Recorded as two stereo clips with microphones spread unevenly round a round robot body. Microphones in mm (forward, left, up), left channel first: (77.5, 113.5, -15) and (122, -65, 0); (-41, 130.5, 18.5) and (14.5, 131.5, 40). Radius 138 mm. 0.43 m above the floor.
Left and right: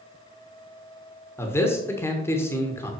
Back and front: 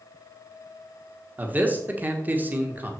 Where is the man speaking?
65° left, 1.3 m.